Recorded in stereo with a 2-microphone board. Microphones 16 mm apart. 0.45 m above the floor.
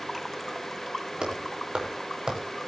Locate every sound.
1.2 s footsteps: 70° right (ahead or behind), 8.5 m; by 2.5 s 75° right (ahead or behind), 9 m